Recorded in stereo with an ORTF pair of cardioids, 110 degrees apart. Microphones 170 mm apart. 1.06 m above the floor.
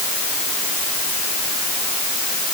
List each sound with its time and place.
Only background noise.